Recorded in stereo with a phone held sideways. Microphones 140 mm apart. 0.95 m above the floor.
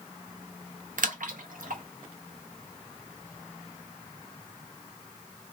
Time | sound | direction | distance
1.0 | a splash | 75° right (ahead or behind) | 0.6 m